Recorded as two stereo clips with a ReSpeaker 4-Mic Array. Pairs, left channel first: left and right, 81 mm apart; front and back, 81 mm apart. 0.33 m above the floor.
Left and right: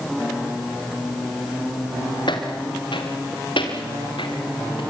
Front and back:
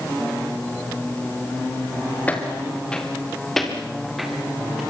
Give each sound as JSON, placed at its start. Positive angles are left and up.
{"t": 2.3, "sound": "footsteps", "azimuth_deg": 70, "distance_m": 4.5}